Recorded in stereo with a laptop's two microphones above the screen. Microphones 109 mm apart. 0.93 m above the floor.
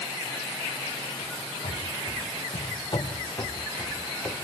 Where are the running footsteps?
65° left (ahead or behind), 4 m; by 4.3 s 10° left (ahead or behind), 3.5 m.